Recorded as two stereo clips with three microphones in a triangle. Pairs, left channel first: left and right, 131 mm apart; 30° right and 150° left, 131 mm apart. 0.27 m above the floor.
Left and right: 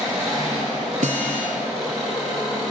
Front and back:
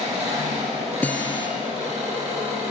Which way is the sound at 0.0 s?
175° right.